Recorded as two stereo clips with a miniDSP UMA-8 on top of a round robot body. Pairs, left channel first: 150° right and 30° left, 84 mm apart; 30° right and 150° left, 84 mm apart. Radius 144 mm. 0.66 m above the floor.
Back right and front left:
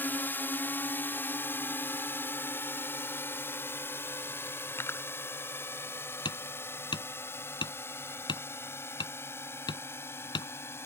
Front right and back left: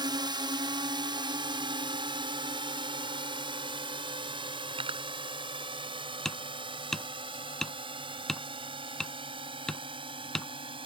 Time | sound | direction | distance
0.0 | a drone | 145° left | ?
4.7 | cutlery clinking | 145° left | ?
6.2 | hammering | 115° right | ?